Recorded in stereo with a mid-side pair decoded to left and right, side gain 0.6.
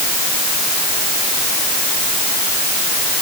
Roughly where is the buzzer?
No buzzer in this recording.